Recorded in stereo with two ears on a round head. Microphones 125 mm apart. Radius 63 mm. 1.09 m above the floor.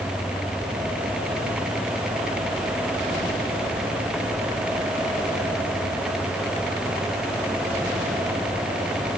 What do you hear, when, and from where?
Only background noise.